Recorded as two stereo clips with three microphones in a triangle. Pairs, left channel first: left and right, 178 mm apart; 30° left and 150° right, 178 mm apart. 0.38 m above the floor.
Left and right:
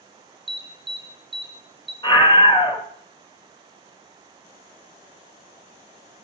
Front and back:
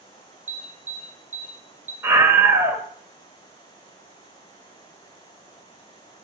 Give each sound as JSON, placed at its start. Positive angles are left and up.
{"t": 0.5, "sound": "an alarm", "azimuth_deg": -105, "distance_m": 6.5}
{"t": 2.0, "sound": "a scream", "azimuth_deg": 140, "distance_m": 1.7}